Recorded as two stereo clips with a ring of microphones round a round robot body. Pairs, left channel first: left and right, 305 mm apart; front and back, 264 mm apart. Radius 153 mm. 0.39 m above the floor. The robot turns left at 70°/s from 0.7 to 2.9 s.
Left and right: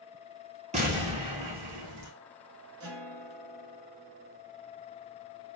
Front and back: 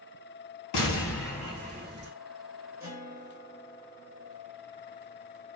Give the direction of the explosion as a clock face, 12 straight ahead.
1 o'clock.